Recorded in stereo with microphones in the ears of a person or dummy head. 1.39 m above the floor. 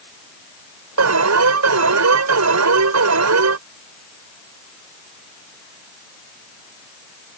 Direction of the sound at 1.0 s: 80° right.